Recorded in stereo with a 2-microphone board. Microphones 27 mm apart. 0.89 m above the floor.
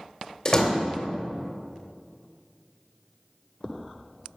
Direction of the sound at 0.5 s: 30° left (ahead or behind).